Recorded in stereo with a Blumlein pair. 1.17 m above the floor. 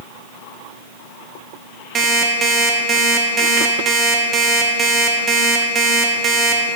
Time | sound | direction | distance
1.9 | an alarm clock | 20° right | 0.9 m